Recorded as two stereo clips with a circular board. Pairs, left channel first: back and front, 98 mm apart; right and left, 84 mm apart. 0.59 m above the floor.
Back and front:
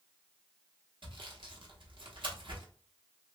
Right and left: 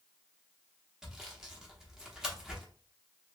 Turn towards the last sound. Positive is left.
turn(degrees=10)